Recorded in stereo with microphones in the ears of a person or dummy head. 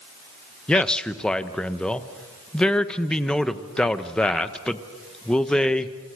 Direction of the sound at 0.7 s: 10° left (ahead or behind).